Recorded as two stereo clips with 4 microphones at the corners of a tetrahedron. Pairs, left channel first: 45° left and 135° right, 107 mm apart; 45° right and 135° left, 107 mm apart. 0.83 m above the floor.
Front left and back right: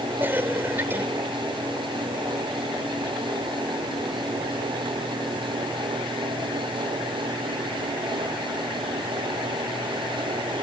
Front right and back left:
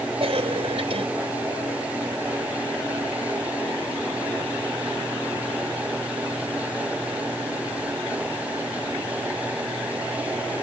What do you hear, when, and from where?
0.2 s a cough: 155° left